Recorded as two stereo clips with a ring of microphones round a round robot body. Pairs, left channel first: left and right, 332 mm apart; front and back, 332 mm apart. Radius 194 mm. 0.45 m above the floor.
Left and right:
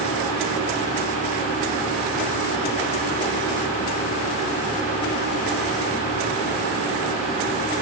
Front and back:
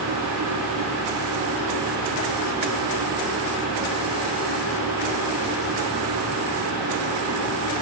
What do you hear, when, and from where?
Only background noise.